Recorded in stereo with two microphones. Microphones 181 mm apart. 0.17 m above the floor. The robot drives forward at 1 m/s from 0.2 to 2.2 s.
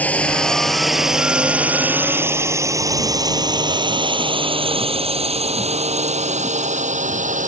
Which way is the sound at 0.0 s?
10° left (ahead or behind).